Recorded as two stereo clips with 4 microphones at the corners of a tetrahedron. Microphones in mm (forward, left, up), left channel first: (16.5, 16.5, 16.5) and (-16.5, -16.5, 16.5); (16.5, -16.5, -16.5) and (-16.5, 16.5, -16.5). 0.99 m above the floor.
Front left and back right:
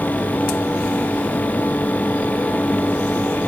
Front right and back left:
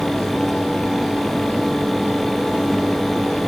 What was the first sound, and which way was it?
Only background noise.